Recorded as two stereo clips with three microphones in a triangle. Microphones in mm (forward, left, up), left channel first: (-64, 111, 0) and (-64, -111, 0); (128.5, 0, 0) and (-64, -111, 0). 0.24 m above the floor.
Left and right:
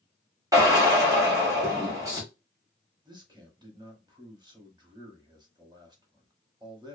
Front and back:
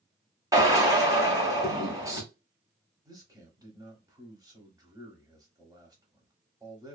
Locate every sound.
0.5 s a drill: 120° right, 1.2 m
3.0 s a man speaking: 110° right, 1.0 m